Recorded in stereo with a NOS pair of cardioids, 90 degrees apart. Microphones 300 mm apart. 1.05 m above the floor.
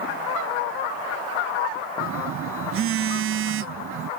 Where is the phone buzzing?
45° right.